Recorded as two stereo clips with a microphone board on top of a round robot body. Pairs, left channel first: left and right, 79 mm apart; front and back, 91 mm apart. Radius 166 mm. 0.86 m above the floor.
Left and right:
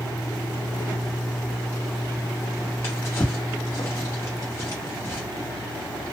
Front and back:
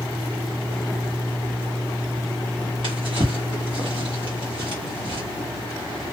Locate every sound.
2.8 s a drawer: 150° left, 1.0 m